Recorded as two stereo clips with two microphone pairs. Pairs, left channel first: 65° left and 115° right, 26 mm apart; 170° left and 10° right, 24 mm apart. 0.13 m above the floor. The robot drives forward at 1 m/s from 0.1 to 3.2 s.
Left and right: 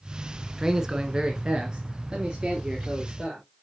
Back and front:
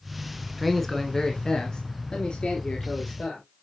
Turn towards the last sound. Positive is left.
turn(degrees=-170)